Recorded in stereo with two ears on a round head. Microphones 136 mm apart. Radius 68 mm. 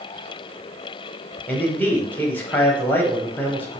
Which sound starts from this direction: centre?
A man speaking, at 1.5 s.